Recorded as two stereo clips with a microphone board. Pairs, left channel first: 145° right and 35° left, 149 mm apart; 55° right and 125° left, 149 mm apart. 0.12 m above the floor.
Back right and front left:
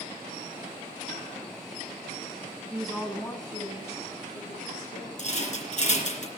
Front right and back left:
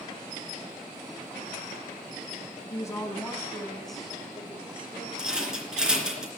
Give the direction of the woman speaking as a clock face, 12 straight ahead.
1 o'clock.